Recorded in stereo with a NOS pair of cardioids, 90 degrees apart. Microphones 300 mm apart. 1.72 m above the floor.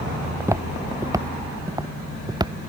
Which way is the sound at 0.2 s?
10° right.